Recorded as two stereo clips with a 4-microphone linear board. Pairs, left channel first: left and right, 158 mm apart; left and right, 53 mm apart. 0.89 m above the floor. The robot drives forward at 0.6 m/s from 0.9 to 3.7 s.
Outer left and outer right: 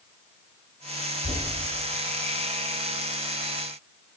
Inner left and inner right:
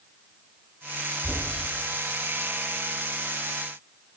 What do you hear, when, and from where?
1.2 s knocking: 25° right (ahead or behind), 5 m